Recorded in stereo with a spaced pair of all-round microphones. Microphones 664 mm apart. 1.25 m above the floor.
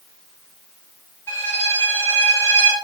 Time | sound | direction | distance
1.3 | a violin | 5° left (ahead or behind) | 4.5 m